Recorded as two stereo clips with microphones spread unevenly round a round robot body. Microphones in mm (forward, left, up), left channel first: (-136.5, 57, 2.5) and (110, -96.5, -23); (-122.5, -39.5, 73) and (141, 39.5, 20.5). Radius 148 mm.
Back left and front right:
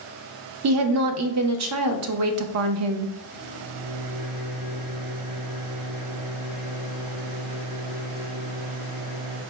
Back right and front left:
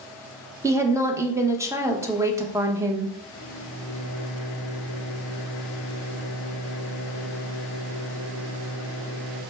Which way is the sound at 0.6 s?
55° right.